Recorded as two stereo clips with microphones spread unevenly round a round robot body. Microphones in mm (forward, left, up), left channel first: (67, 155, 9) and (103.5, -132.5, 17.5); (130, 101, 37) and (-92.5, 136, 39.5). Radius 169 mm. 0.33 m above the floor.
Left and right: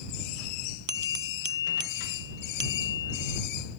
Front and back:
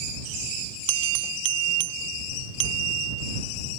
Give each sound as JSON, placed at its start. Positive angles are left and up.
{"t": 0.9, "sound": "a bell", "azimuth_deg": -145}